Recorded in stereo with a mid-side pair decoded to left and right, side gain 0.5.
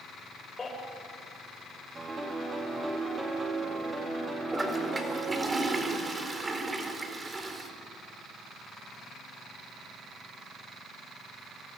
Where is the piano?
20° right, 4.5 m.